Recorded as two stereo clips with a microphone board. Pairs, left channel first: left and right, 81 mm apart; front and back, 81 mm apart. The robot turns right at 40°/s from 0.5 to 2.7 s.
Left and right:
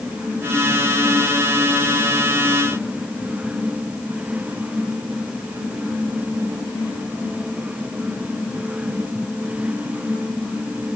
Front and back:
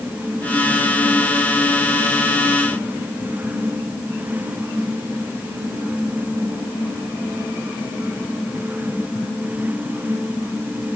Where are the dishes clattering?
No dishes clattering in this recording.